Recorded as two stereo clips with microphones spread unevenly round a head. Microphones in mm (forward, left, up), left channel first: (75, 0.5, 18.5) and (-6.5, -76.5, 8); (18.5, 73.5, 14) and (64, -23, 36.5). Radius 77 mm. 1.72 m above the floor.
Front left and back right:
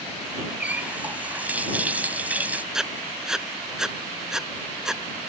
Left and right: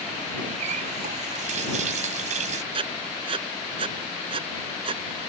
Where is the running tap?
60° right.